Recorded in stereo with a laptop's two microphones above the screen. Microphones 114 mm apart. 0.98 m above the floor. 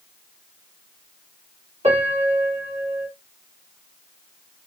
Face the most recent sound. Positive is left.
turn(degrees=-70)  # may be behind; listen again after turning